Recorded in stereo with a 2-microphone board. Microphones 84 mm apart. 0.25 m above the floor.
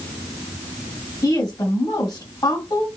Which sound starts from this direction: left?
A woman speaking, at 1.2 s.